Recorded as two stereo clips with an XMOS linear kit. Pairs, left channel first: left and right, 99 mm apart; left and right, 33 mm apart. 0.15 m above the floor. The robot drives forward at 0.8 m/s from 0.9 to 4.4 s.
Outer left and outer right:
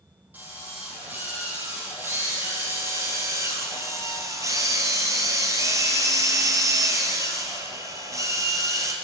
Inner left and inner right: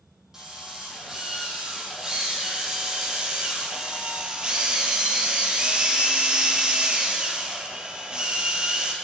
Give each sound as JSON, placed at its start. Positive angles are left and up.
{"t": 0.3, "sound": "a drill", "side_deg": -20, "distance_m": 6.5}